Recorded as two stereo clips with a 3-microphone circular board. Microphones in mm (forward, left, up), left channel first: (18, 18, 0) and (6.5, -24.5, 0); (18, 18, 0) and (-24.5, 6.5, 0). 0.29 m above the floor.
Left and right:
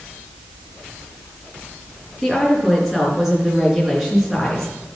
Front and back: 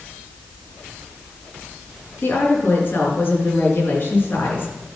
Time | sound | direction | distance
2.2 | a woman speaking | 20° right | 4 m